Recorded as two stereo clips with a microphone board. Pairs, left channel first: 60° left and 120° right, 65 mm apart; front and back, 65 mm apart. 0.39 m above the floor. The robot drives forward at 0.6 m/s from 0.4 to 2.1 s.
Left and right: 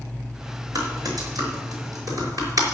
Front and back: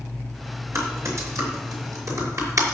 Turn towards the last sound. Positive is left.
turn(degrees=-145)